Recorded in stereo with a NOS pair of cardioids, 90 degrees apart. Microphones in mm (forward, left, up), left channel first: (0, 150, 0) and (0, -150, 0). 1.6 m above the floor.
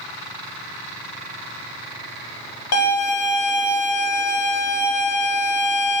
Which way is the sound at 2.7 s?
55° left.